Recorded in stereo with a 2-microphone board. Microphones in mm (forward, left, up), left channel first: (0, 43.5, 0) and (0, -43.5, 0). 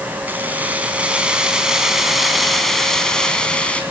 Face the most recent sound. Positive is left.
turn(degrees=15)  # may be behind; listen again after turning